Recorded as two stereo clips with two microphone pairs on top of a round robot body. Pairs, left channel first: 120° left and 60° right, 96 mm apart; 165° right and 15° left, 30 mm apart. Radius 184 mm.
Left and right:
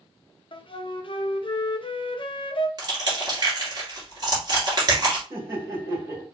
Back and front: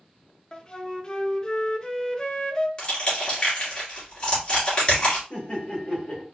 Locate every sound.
0.5 s a flute: 130° left, 0.8 m
2.8 s crushing: 110° right, 2 m
5.3 s laughter: 120° right, 2.5 m